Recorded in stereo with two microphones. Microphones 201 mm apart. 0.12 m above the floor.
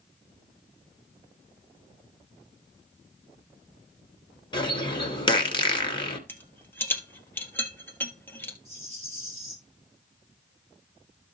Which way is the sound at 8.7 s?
35° right (ahead or behind).